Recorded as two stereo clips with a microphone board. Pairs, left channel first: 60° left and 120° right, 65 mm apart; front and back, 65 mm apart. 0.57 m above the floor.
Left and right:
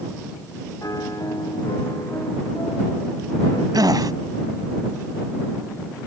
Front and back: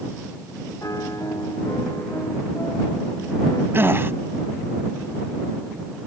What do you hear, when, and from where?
0.8 s a piano: 30° left
3.7 s a gasp: 125° right